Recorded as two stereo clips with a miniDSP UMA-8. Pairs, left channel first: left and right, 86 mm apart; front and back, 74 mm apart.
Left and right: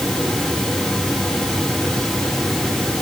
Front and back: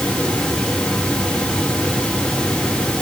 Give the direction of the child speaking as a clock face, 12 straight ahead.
No child speaking in this recording.